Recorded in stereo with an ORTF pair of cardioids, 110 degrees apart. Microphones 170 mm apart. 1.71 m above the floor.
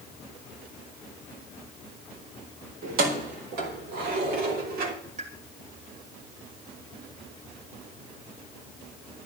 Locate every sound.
2.8 s keys jangling: 70° right, 4 m; by 5.0 s 65° right, 3 m
5.2 s a pop: 40° right, 3 m